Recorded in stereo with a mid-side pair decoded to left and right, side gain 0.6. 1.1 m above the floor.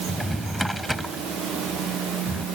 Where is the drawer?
Straight ahead.